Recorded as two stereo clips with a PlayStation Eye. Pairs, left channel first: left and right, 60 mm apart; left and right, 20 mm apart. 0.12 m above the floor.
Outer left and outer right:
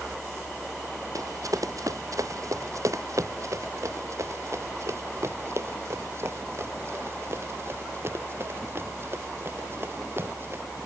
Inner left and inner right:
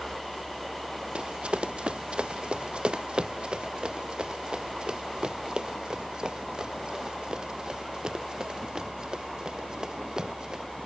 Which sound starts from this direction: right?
Running footsteps, at 1.1 s.